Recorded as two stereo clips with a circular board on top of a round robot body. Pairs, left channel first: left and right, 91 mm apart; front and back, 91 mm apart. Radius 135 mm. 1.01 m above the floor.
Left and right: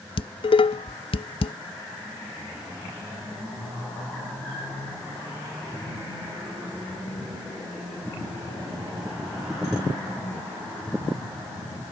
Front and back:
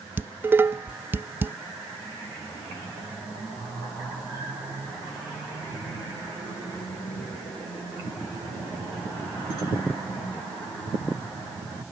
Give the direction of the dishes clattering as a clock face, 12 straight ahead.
8 o'clock.